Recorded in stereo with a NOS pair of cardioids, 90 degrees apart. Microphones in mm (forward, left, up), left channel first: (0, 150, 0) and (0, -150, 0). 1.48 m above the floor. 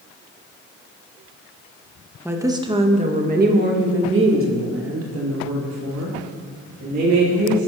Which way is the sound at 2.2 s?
5° right.